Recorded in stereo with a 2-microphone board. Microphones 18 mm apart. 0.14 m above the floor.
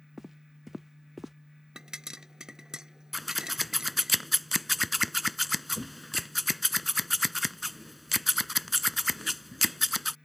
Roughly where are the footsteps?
Centre.